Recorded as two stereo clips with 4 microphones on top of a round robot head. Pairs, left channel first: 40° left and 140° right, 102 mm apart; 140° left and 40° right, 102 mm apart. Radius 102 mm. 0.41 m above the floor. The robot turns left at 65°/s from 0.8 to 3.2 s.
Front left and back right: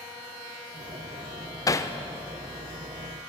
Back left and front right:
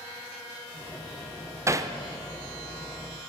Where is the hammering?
5° left, 1.2 m; by 1.9 s 10° right, 1.2 m.